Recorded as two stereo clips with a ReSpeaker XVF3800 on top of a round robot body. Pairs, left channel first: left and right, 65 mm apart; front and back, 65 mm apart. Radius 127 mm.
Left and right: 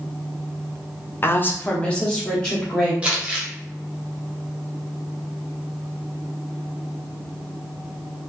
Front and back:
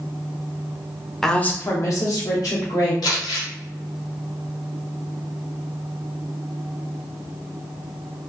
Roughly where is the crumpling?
Ahead.